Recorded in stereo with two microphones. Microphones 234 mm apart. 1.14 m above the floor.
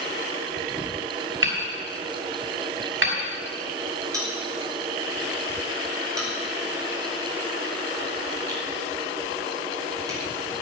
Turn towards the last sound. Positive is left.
turn(degrees=-15)  # may be behind; listen again after turning